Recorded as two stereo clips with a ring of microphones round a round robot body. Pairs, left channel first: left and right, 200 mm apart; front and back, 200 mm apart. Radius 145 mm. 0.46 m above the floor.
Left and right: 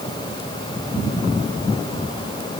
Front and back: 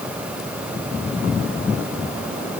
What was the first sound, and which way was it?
Only background noise.